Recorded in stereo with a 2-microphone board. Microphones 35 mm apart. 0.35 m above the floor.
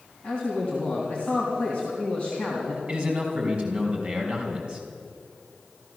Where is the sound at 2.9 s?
30° right (ahead or behind), 3 m.